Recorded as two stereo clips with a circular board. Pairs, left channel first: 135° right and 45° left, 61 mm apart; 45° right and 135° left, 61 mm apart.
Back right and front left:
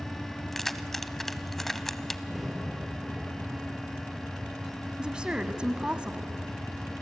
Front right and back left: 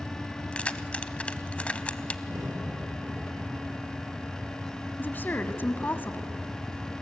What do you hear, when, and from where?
0.5 s keys jangling: 55° right, 0.7 m
2.3 s a crack: 135° left, 5.5 m
5.0 s a woman speaking: 20° right, 1.3 m